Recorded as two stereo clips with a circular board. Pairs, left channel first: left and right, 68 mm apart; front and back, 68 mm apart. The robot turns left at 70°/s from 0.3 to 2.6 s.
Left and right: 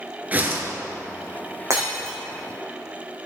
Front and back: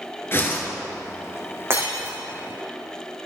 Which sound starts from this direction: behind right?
Breaking glass, at 1.7 s.